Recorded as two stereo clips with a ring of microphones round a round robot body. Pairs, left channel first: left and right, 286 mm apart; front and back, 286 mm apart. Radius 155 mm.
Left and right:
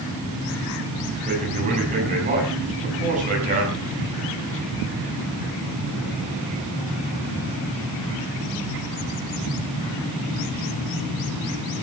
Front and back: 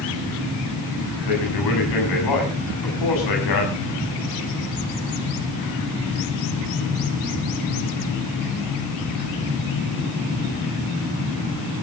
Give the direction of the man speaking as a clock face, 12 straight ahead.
1 o'clock.